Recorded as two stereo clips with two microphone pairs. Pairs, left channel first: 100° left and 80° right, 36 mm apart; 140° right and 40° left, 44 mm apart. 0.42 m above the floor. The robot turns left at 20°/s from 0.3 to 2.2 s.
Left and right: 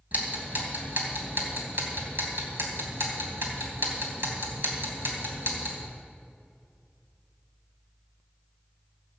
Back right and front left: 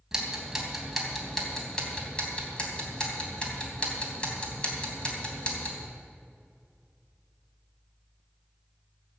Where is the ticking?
40° right, 3 m; by 5.8 s 75° right, 3 m.